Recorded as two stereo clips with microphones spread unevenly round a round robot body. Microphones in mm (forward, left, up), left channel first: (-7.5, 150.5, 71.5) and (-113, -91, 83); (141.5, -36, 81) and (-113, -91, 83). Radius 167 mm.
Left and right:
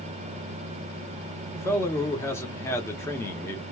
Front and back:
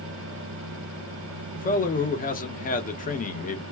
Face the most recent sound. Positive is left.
turn(degrees=0)